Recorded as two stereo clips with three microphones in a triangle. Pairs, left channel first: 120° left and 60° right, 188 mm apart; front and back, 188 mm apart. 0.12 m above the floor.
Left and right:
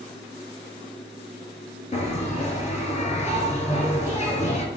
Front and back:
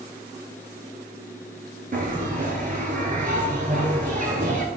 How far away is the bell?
About 0.6 m.